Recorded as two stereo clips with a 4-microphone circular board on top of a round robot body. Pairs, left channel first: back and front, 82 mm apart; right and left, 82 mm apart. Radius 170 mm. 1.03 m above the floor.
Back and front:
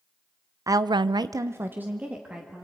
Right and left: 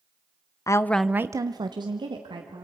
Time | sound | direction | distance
0.7 | a woman speaking | 45° right | 0.8 m